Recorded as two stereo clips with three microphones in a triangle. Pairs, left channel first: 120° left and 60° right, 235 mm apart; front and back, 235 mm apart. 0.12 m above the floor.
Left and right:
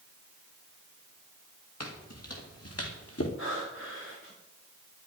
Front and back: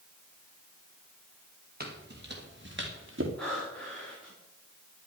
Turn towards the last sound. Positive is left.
turn(degrees=85)